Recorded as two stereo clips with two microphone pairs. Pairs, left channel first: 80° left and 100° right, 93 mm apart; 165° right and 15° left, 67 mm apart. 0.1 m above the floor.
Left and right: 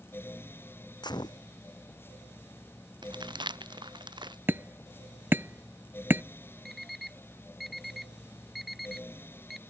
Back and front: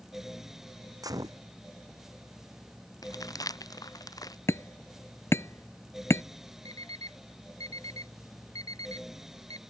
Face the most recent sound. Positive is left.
turn(degrees=170)